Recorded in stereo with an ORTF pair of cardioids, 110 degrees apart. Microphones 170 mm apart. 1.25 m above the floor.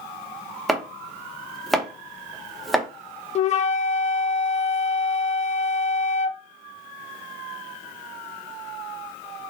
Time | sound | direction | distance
0.7 | chopping | straight ahead | 0.9 m
3.4 | a flute | 45° left | 0.6 m